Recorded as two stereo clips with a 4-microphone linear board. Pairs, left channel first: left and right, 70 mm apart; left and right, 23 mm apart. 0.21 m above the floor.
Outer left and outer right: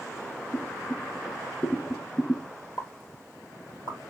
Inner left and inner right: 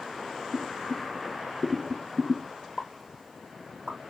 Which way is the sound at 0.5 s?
30° left (ahead or behind).